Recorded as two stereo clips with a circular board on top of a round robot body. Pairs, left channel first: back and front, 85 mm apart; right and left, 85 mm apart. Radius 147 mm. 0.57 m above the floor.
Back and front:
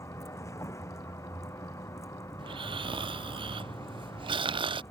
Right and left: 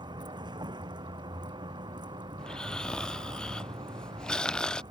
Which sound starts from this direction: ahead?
Snoring, at 2.4 s.